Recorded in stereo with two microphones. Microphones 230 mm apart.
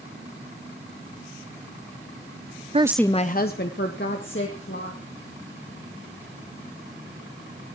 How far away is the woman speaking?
About 0.6 m.